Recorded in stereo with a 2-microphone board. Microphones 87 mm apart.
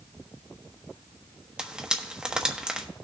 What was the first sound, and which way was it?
Frying, 10° right (ahead or behind).